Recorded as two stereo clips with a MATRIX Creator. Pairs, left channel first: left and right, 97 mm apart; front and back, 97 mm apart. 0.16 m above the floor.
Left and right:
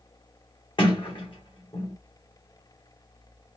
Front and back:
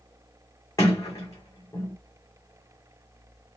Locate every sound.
0.8 s a sliding door: 55° left, 2 m